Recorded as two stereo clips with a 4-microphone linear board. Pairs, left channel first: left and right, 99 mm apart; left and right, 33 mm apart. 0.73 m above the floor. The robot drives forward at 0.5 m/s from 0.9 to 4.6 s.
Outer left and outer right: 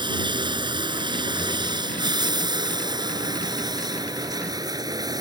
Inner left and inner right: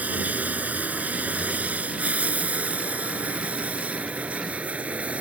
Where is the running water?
50° right (ahead or behind); by 5.2 s 40° right (ahead or behind).